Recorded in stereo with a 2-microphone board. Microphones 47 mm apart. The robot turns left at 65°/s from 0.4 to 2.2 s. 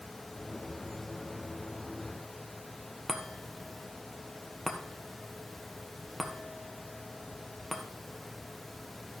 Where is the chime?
Centre (ahead or behind), 1.3 m.